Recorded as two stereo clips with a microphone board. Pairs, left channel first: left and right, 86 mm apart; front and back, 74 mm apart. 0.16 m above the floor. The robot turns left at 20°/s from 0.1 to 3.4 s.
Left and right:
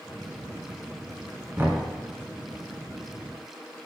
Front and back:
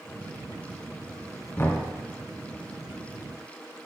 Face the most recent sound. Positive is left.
turn(degrees=-75)